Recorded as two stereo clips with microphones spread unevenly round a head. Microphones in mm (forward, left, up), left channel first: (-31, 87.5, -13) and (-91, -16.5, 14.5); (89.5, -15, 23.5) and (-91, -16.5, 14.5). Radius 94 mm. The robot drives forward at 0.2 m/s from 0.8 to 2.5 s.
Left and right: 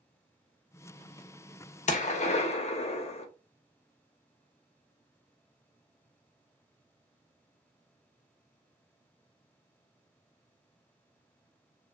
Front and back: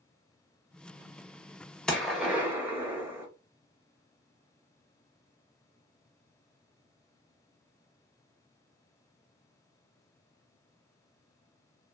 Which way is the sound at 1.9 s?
85° left.